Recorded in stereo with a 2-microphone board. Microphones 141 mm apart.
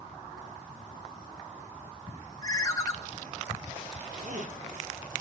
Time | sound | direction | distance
2.4 | a ringtone | 25° left (ahead or behind) | 0.7 m
4.1 | a zipper | 65° right (ahead or behind) | 1.4 m